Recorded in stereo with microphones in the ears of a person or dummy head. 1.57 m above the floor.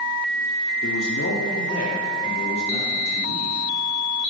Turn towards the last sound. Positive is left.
turn(degrees=35)  # may be behind; listen again after turning